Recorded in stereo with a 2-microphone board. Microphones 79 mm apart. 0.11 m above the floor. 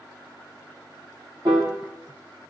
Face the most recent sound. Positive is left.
turn(degrees=-70)  # may be behind; listen again after turning